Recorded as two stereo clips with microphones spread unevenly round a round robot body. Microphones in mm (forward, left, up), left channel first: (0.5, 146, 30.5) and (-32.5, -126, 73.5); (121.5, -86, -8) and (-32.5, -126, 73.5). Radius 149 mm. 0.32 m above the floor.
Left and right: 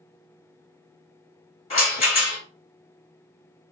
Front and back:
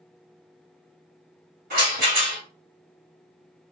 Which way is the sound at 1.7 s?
140° left.